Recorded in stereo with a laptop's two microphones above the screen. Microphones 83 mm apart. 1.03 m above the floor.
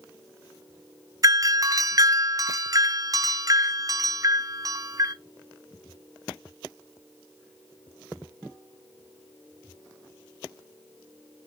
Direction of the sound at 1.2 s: 40° right (ahead or behind).